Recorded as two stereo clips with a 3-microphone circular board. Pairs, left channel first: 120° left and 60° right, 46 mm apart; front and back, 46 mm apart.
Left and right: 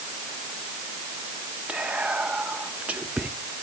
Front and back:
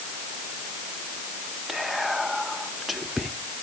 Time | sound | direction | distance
1.7 | whispering | 95° right | 0.7 m